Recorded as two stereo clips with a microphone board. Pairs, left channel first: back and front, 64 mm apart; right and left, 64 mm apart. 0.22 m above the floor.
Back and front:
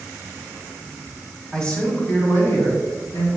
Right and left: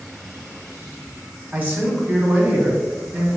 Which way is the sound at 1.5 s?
110° left.